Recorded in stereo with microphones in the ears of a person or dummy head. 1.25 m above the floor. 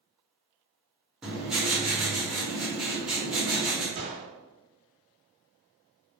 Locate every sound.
1.2 s writing: 5° right (ahead or behind), 0.8 m
4.0 s a gunshot: 50° right (ahead or behind), 0.8 m